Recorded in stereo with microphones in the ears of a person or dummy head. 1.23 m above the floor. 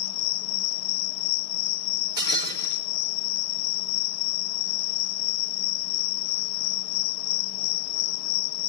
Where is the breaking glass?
25° right (ahead or behind), 5 m.